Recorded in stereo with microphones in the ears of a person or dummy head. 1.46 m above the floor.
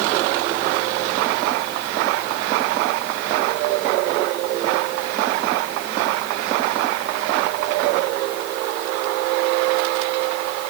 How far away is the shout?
I don't hear a shout.